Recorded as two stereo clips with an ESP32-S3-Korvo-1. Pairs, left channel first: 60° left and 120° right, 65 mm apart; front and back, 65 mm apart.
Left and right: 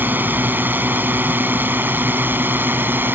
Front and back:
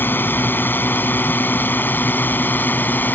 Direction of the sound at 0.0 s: 60° right.